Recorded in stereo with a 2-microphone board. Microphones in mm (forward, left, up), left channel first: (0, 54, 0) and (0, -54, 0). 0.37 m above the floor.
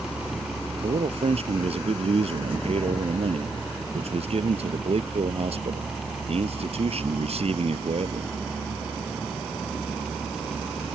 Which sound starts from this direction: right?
A man speaking, at 0.8 s.